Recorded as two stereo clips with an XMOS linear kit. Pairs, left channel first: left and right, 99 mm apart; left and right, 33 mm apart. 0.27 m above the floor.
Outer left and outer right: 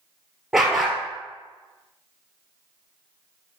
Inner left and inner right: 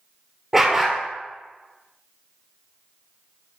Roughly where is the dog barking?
Centre.